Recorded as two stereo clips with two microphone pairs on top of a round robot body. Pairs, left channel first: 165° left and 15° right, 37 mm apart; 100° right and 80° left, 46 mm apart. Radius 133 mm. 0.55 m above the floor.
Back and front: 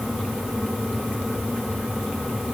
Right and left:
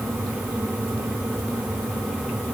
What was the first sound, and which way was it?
Only background noise.